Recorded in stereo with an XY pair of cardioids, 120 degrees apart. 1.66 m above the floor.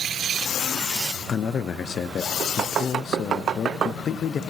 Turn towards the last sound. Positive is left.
turn(degrees=45)